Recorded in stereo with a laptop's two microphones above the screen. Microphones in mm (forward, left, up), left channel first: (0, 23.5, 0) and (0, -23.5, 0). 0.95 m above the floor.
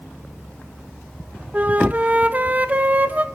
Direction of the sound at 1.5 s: 30° right (ahead or behind).